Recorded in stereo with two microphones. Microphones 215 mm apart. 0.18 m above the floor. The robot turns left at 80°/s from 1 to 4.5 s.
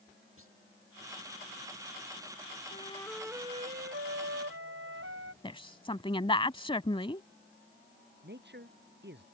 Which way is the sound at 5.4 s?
25° left (ahead or behind).